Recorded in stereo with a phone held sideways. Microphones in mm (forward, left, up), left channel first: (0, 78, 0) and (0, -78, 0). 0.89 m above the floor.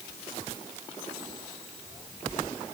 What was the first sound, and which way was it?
Only background noise.